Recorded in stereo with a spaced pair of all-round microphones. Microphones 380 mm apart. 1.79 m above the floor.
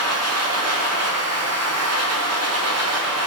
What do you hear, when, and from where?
0.0 s a machine running: 40° right (ahead or behind), 1.0 m